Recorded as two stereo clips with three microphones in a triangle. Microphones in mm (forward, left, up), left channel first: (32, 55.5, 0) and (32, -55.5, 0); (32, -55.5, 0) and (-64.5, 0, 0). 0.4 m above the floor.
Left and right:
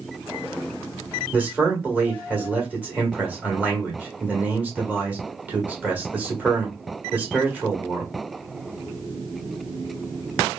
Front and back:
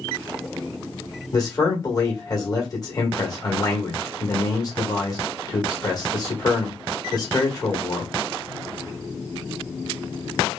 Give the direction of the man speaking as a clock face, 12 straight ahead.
1 o'clock.